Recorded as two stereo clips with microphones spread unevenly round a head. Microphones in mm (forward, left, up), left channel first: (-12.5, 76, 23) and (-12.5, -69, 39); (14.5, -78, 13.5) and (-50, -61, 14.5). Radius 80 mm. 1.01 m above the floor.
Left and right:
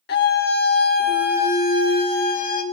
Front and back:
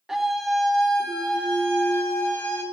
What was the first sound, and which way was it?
A scream, 80° left.